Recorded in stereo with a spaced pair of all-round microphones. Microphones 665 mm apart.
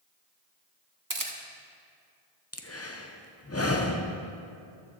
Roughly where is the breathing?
Left.